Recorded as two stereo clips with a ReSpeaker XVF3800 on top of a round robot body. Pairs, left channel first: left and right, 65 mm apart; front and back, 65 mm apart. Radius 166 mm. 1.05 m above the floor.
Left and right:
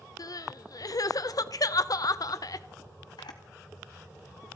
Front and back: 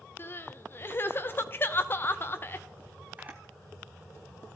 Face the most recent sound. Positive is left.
turn(degrees=105)